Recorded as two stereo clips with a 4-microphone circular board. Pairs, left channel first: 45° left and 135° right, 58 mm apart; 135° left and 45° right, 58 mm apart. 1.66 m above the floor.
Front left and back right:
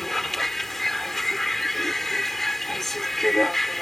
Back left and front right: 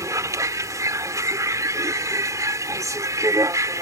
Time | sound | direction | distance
0.0 | a vehicle | 40° right | ?